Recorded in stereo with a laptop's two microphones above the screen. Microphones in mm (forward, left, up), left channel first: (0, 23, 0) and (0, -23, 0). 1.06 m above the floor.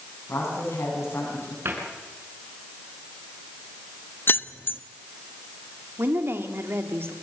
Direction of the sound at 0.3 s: 80° left.